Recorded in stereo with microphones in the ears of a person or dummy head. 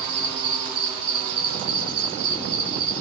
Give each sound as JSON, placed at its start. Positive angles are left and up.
{"t": 0.0, "sound": "an insect", "side_deg": -35, "distance_m": 3.0}